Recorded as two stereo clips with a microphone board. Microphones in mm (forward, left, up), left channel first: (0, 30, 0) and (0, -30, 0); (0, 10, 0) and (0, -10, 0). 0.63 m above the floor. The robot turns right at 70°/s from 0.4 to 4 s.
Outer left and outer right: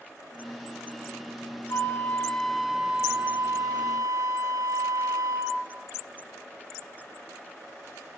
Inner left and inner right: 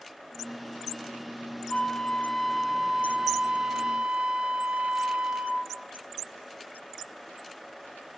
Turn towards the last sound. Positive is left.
turn(degrees=-75)